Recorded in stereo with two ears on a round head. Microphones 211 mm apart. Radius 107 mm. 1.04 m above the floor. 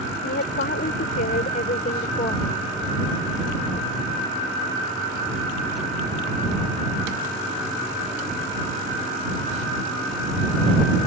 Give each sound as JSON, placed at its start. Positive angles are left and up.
{"t": 0.2, "sound": "a woman speaking", "side_deg": 45}